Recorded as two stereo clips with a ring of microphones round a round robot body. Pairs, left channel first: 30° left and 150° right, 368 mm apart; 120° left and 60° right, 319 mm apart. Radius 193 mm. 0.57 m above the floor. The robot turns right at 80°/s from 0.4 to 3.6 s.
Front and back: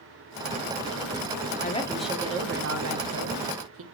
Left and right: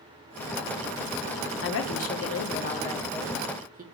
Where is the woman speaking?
90° left, 0.8 m; by 3.8 s 115° right, 0.8 m.